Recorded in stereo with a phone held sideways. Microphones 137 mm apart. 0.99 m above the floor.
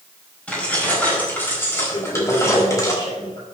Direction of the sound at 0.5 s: 10° left (ahead or behind).